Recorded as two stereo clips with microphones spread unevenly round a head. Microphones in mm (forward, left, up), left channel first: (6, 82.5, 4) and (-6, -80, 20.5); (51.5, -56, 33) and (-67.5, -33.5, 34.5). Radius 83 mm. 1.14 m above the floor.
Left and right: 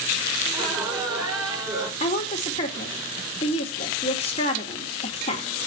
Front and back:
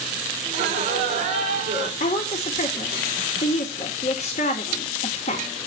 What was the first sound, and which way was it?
Laughter, 165° right.